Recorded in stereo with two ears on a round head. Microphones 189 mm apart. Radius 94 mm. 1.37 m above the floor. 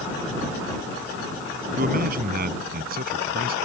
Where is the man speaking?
45° right (ahead or behind); by 3.5 s 50° right (ahead or behind).